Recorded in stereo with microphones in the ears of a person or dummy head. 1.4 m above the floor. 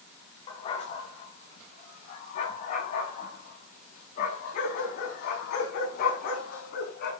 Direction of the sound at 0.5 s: 35° left (ahead or behind).